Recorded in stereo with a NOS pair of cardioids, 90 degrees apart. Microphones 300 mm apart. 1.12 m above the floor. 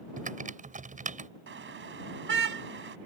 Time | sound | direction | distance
0.2 | typing on a keyboard | 25° right | ?
1.5 | a car horn | 40° right | ?